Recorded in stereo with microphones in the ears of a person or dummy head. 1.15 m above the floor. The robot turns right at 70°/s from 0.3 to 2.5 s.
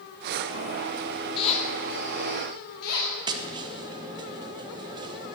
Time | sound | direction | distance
1.4 | a squeak | 35° left | 2 m
3.3 | tapping | 25° right (ahead or behind) | 1.0 m